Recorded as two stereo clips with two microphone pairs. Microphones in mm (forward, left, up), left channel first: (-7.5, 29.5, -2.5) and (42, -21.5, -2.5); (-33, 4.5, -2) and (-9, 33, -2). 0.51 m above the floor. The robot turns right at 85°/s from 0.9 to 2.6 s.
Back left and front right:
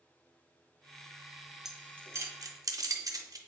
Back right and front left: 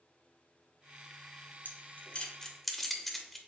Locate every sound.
1.6 s keys jangling: 125° right, 0.5 m; by 3.4 s 45° right, 0.5 m